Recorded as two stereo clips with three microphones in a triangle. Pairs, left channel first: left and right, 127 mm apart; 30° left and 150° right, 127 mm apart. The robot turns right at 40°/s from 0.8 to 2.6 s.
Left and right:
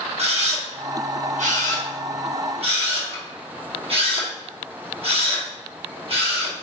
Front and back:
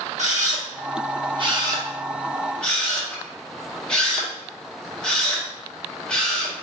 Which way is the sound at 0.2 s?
125° right.